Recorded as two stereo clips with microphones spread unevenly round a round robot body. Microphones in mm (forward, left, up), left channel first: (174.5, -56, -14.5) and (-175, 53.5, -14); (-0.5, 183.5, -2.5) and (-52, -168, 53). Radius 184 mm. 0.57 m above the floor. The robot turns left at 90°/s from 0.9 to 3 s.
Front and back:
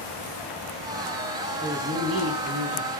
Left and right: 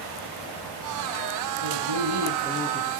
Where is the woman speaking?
100° right, 5.5 m; by 2.9 s 145° left, 5.5 m.